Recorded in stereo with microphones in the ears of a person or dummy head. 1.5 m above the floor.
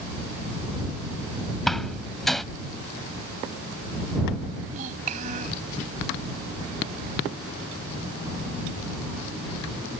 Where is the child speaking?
45° right (ahead or behind).